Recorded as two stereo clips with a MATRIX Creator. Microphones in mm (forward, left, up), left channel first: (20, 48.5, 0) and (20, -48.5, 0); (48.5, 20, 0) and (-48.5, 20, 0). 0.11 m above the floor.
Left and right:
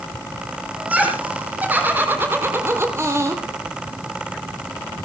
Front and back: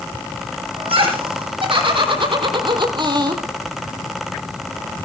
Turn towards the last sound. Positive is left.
turn(degrees=-140)